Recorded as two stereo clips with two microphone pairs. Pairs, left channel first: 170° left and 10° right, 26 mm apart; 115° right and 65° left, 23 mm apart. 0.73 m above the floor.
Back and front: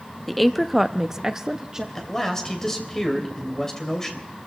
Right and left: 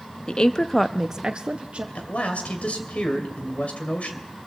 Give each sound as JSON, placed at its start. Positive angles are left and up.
{"t": 0.3, "sound": "a woman speaking", "azimuth_deg": -100, "distance_m": 0.8}
{"t": 1.9, "sound": "a man speaking", "azimuth_deg": -115, "distance_m": 3.0}